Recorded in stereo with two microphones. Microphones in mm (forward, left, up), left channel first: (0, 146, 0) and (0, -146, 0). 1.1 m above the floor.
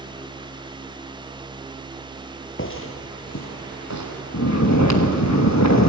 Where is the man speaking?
I don't hear a man speaking.